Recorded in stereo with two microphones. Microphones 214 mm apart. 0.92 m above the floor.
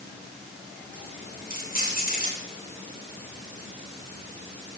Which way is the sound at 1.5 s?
45° left (ahead or behind).